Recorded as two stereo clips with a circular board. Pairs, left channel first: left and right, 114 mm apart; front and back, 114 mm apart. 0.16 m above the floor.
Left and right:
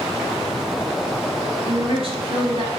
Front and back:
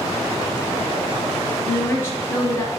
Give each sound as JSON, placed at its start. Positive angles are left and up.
{"t": 1.6, "sound": "a woman speaking", "azimuth_deg": -65, "distance_m": 3.0}